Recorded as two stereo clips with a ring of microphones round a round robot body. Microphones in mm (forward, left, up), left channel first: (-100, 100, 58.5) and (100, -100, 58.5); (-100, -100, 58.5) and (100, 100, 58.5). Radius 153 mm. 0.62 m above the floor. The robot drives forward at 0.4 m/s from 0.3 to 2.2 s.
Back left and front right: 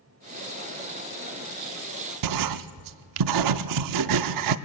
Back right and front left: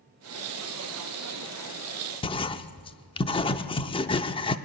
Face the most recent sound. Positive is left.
turn(degrees=-60)